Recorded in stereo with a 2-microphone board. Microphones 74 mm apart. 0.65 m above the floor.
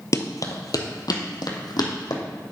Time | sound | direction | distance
0.1 | running footsteps | 45° left (ahead or behind) | 0.9 m